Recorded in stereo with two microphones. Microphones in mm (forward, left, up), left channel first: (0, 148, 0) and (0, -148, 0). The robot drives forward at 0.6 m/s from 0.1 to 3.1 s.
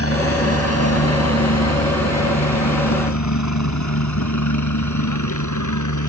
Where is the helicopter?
50° left (ahead or behind); by 6.1 s 75° left (ahead or behind).